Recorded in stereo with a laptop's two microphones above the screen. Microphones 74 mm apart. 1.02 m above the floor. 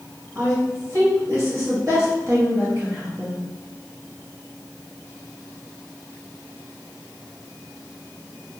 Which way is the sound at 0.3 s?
40° right (ahead or behind).